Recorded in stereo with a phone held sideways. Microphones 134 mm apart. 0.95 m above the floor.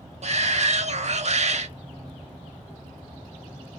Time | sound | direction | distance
0.2 | a shout | 55° right (ahead or behind) | 1.3 m